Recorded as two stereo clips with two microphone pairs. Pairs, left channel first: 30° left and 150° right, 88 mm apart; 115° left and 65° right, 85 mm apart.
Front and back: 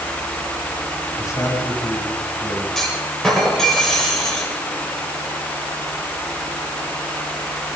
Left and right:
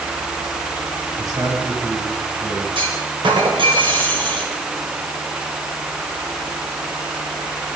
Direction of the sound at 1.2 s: 25° right.